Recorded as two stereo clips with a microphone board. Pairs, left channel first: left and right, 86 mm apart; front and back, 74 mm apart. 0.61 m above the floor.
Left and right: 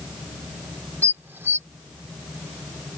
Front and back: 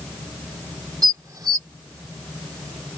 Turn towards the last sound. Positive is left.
turn(degrees=-150)